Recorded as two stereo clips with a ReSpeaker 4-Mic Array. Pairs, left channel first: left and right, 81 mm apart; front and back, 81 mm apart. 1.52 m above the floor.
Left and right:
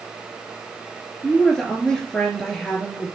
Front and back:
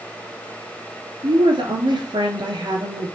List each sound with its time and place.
1.2 s a woman speaking: 170° left, 3 m